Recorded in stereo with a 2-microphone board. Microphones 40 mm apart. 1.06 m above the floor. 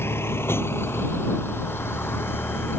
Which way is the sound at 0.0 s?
85° left.